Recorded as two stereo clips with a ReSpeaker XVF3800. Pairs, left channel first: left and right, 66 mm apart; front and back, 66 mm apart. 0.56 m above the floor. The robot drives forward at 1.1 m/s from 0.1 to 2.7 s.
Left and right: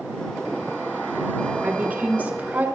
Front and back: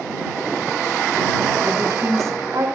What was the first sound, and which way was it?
A woman speaking, 150° right.